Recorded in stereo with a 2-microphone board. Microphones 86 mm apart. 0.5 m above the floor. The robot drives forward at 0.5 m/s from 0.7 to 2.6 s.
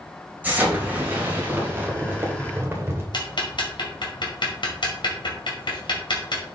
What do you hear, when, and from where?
0.4 s an explosion: 20° right (ahead or behind), 3 m; by 3.0 s 30° right (ahead or behind), 2 m
3.1 s ticking: 55° left (ahead or behind), 2 m